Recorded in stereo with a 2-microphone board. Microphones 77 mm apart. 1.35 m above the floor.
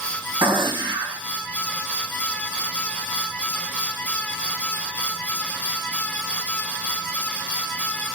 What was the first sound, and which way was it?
A gunshot, 75° right (ahead or behind).